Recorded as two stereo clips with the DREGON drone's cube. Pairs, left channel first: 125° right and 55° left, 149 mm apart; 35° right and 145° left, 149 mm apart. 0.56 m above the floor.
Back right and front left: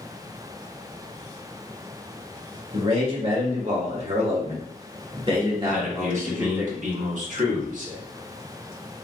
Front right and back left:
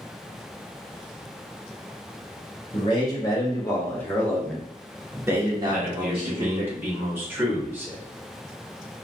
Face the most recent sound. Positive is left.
turn(degrees=70)